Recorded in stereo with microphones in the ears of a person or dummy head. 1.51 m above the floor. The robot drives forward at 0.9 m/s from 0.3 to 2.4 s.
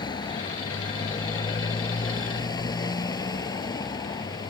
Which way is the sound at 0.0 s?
20° left (ahead or behind).